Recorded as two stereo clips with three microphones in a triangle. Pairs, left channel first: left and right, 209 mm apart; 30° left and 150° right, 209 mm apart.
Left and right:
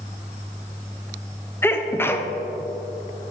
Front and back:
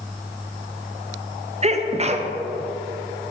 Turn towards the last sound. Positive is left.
turn(degrees=165)